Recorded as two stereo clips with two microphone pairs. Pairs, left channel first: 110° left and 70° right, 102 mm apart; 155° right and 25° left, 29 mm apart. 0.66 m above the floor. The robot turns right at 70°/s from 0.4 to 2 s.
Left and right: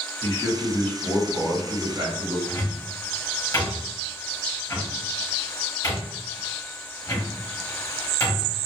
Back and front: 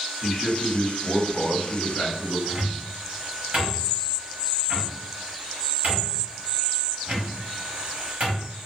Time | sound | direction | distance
0.2 | a man speaking | 155° left | 1.4 m
2.5 | a cupboard door | 60° left | 1.2 m